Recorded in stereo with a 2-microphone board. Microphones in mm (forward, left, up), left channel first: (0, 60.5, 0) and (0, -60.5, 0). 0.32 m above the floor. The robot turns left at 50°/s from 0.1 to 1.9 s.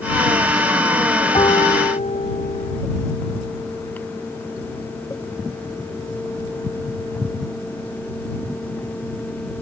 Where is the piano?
40° left (ahead or behind); by 2.8 s 70° left (ahead or behind).